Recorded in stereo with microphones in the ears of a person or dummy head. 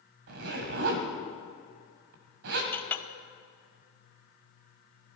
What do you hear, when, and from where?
0.3 s a zipper: 50° right (ahead or behind), 1.5 m
2.7 s a clink: 15° left (ahead or behind), 0.7 m